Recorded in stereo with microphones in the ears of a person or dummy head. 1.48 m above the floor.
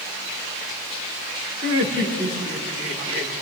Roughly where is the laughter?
Right.